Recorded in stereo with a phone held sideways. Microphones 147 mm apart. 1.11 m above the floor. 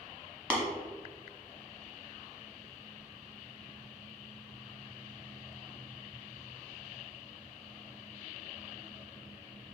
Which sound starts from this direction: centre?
Tapping, at 0.5 s.